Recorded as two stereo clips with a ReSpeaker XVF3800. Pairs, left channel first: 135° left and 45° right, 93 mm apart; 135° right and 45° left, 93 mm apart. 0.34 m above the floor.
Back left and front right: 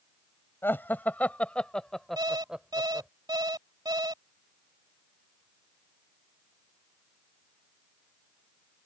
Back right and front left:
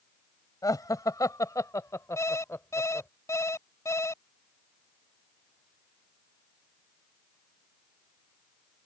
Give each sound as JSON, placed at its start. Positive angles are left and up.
{"t": 0.6, "sound": "laughter", "azimuth_deg": -165}
{"t": 2.2, "sound": "an alarm clock", "azimuth_deg": -80}